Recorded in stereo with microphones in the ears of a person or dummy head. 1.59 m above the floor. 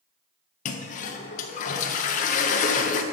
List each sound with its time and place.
0.7 s a toilet flushing: 40° left (ahead or behind), 0.6 m